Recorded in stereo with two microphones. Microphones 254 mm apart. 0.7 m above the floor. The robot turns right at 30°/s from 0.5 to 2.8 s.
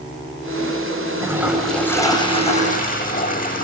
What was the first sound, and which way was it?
A toilet flushing, 15° right.